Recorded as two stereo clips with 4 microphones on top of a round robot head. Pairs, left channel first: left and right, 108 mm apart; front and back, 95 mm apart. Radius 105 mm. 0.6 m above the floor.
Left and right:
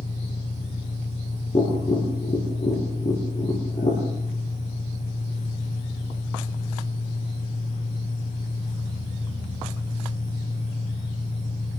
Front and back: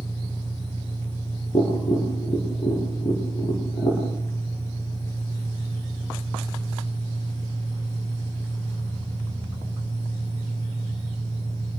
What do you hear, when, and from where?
0.0 s an engine running: 60° left, 9.5 m
1.5 s tapping: 35° left, 9.5 m